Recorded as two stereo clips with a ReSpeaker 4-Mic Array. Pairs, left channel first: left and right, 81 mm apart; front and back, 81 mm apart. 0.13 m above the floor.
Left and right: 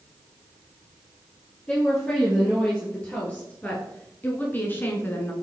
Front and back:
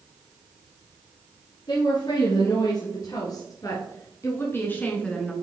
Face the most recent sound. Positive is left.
turn(degrees=80)